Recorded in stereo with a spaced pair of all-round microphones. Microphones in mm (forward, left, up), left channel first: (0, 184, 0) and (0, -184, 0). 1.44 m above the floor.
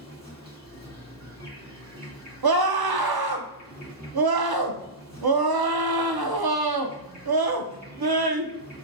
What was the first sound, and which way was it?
An insect, 25° right (ahead or behind).